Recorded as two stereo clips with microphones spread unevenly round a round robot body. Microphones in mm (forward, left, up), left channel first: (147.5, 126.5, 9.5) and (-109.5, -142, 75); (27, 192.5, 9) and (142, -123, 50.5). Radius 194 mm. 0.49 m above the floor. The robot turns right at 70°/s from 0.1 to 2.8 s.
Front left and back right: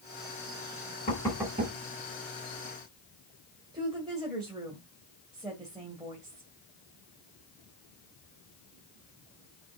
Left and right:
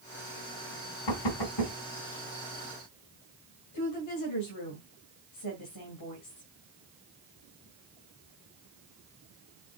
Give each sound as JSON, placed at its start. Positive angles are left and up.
{"t": 1.1, "sound": "knocking", "azimuth_deg": 115, "distance_m": 2.5}
{"t": 3.7, "sound": "a woman speaking", "azimuth_deg": 145, "distance_m": 2.0}